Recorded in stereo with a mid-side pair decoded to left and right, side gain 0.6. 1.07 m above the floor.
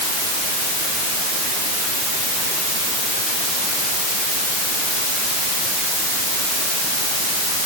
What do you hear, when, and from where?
Only background noise.